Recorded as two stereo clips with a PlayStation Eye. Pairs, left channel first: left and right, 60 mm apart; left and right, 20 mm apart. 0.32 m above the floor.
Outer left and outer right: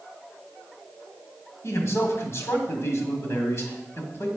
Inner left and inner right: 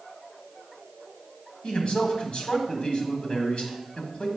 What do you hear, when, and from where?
1.6 s a man speaking: 50° left (ahead or behind), 1.7 m